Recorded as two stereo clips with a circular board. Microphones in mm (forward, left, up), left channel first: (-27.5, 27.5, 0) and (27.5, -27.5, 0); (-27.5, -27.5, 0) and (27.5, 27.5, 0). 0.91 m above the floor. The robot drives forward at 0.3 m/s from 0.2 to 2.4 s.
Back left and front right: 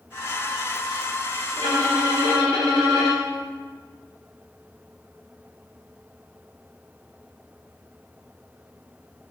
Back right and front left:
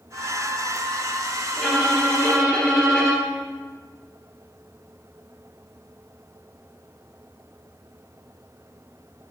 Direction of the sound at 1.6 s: 60° right.